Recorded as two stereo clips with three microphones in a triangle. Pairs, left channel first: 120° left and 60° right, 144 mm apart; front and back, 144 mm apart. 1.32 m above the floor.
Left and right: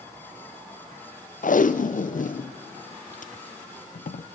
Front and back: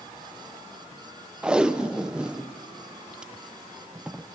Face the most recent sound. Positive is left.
turn(degrees=95)